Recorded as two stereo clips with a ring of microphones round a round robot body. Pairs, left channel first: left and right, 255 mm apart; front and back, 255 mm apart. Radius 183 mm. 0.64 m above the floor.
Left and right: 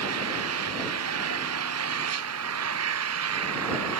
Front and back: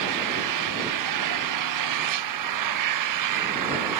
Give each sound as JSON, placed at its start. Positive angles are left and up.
{"t": 0.0, "sound": "an engine running", "azimuth_deg": -145}